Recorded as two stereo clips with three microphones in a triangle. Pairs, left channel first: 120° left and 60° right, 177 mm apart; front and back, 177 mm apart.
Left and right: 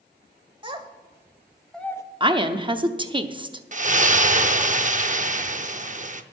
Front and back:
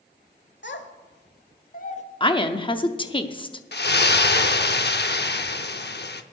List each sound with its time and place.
0.6 s a child speaking: straight ahead, 1.3 m; by 2.0 s 50° left, 0.8 m
2.2 s a woman speaking: 30° right, 0.7 m
3.7 s a splash: 15° right, 0.6 m